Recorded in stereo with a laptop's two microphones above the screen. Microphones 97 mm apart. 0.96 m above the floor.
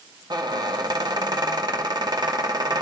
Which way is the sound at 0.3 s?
45° right (ahead or behind).